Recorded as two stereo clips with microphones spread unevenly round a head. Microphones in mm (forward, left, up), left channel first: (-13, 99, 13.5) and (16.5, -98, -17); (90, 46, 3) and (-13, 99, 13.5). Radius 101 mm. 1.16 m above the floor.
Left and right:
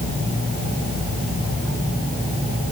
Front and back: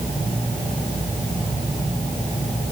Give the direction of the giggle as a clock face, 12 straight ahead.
I don't hear a giggle.